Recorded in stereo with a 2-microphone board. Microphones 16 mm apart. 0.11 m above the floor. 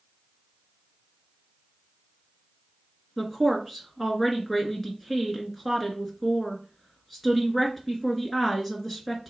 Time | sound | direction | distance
3.2 | a woman speaking | 5° left (ahead or behind) | 1.3 m